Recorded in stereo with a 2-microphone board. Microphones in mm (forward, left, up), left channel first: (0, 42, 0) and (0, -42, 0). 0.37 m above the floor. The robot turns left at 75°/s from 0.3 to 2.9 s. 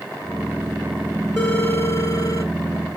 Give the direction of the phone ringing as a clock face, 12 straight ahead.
7 o'clock.